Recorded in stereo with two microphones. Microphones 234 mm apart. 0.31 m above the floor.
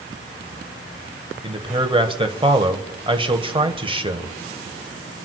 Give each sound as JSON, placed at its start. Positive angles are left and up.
{"t": 1.4, "sound": "a man speaking", "side_deg": -20, "distance_m": 1.3}